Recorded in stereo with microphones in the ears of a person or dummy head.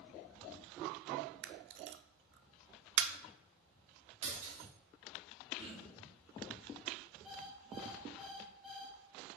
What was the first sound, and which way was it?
A camera shutter, 55° right (ahead or behind).